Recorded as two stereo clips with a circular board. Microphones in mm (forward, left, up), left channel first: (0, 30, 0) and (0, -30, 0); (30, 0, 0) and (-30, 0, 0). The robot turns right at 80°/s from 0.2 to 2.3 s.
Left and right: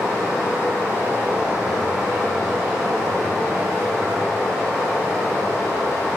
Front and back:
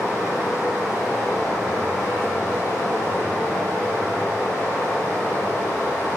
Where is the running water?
155° right, 1.0 m; by 6.2 s 15° left, 1.0 m.